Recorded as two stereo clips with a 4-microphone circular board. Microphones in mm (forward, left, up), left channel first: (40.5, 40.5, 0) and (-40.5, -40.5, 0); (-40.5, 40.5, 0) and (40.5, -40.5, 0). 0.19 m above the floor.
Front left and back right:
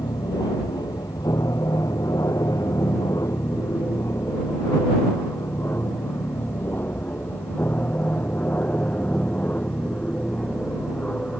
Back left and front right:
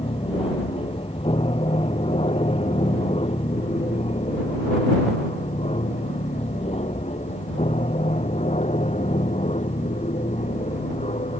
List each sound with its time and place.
0.0 s an aircraft: 100° left; by 11.4 s 125° left